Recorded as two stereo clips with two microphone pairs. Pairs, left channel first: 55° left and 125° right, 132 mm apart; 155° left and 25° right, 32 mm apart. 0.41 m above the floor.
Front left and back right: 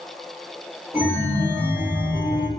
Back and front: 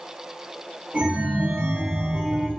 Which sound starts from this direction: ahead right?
A chime, at 0.9 s.